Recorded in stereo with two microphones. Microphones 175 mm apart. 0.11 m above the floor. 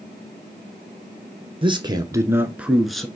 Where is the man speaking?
30° right (ahead or behind), 1.4 m; by 3.1 s 5° left (ahead or behind), 1.3 m.